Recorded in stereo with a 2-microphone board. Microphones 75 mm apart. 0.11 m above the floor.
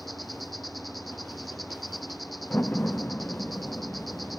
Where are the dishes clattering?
No dishes clattering in this recording.